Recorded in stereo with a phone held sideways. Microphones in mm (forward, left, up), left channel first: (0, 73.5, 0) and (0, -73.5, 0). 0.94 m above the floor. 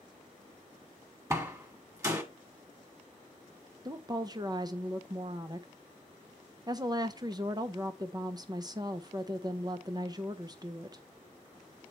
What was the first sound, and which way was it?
A door slam, 20° right (ahead or behind).